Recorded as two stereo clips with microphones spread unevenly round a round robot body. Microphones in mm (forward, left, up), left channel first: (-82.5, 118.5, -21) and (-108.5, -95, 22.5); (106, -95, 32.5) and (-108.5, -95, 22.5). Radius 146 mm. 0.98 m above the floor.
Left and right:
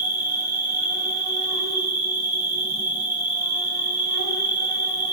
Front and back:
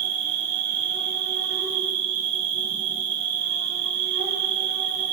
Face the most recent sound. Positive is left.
turn(degrees=-170)